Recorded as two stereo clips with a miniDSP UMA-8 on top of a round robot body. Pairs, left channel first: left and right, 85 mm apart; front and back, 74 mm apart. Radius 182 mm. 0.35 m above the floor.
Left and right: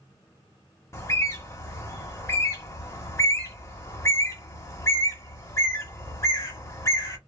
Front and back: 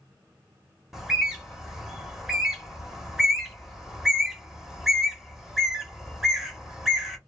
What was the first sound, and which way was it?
A bird, 100° left.